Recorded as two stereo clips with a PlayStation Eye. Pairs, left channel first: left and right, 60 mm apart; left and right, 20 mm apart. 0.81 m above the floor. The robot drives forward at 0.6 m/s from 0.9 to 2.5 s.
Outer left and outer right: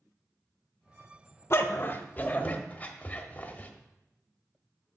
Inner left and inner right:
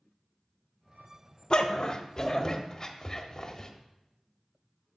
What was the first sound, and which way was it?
A dog barking, 45° left (ahead or behind).